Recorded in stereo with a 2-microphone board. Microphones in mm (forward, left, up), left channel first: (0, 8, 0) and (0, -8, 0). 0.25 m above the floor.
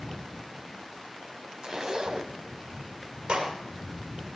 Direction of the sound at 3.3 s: 70° right (ahead or behind).